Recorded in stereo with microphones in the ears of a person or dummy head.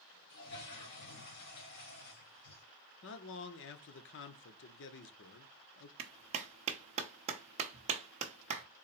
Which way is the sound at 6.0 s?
35° right (ahead or behind).